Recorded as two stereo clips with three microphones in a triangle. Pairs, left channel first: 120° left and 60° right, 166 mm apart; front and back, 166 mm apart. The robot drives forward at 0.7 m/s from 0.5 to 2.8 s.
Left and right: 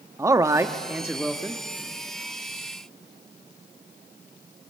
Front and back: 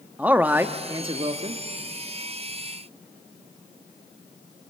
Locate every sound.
0.2 s a man speaking: 110° right, 1.0 m; by 1.6 s 155° right, 1.4 m